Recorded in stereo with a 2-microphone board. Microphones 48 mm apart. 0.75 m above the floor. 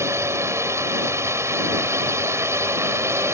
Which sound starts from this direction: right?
A drone, at 0.0 s.